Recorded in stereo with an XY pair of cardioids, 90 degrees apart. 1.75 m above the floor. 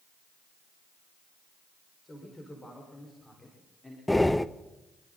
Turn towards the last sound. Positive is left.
turn(degrees=10)